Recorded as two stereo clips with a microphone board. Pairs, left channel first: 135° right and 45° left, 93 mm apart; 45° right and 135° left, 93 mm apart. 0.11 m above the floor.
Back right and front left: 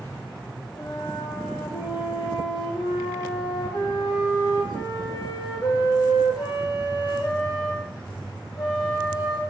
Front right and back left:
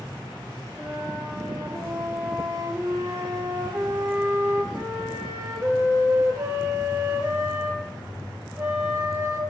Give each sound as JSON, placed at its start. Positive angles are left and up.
{"t": 0.8, "sound": "a flute", "azimuth_deg": -165, "distance_m": 1.1}